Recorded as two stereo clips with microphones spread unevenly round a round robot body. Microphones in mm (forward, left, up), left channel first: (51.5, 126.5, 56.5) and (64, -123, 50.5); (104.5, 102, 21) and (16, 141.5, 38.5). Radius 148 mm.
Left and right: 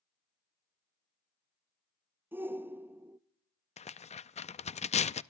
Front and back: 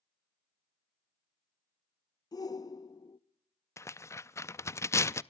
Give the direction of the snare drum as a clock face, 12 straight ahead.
No snare drum in this recording.